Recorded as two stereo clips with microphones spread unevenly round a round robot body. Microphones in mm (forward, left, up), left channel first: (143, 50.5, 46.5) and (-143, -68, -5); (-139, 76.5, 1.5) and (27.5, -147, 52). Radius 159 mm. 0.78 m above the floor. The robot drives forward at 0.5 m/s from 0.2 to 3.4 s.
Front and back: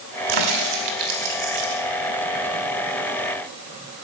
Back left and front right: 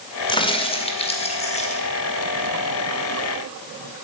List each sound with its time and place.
0.3 s a crack: 160° right, 1.6 m; by 1.8 s 165° right, 2.5 m